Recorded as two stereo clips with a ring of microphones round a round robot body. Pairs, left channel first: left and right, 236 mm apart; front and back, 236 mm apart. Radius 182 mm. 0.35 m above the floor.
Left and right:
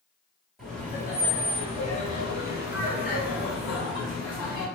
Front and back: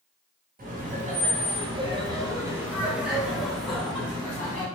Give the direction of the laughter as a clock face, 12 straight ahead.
6 o'clock.